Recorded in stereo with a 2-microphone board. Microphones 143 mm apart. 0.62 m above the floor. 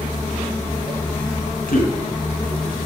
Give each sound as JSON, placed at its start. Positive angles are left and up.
{"t": 1.7, "sound": "a man speaking", "side_deg": 80, "distance_m": 4.0}